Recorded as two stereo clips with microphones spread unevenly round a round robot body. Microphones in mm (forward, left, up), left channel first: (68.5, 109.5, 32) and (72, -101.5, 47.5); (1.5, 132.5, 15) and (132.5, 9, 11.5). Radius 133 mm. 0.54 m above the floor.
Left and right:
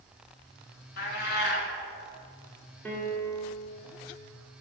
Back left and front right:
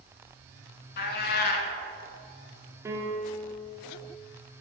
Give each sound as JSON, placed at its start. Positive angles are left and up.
{"t": 1.0, "sound": "a cat meowing", "azimuth_deg": 140, "distance_m": 0.6}
{"t": 2.9, "sound": "a piano", "azimuth_deg": 20, "distance_m": 1.2}